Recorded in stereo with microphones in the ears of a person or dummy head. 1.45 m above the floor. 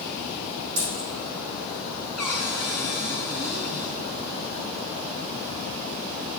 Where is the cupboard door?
Centre (ahead or behind), 5 m.